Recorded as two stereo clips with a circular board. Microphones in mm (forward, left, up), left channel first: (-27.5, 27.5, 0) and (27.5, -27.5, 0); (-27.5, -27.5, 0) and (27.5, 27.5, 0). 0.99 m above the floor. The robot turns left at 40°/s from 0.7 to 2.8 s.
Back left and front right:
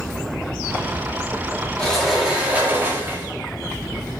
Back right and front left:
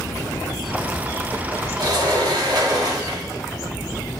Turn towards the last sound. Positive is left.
turn(degrees=15)